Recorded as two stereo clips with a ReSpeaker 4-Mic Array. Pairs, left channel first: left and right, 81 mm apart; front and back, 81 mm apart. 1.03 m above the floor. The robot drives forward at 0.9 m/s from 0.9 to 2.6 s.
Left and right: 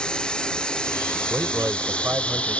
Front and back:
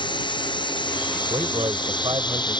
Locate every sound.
0.0 s running water: 10° left; by 2.6 s 15° left
1.3 s a man speaking: 155° right; by 2.6 s 160° right